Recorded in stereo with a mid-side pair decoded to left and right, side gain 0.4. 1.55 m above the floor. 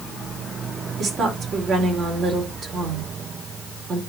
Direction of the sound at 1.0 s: 60° right.